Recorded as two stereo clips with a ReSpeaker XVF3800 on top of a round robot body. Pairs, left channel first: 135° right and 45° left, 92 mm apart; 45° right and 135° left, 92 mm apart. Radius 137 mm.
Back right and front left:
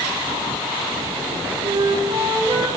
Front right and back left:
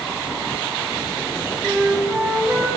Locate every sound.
1.6 s a flute: 65° left, 3 m